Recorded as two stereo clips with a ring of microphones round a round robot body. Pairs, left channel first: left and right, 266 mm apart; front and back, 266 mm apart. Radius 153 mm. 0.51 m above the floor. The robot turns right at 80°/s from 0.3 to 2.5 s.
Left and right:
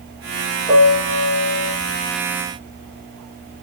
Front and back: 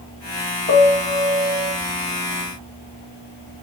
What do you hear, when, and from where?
0.7 s a piano: 50° left, 1.6 m; by 1.7 s 135° left, 1.6 m